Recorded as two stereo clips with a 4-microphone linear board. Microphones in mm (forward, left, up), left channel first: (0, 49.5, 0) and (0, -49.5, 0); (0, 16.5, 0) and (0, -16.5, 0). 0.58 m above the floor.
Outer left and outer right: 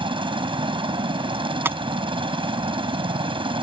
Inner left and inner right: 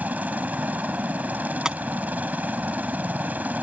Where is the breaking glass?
25° right (ahead or behind).